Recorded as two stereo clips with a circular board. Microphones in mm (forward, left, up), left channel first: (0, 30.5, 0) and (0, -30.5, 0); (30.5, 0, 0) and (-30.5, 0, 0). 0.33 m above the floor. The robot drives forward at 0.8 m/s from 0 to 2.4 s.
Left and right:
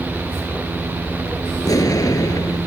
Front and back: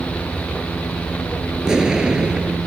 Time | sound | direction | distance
1.6 | an explosion | 100° left | ?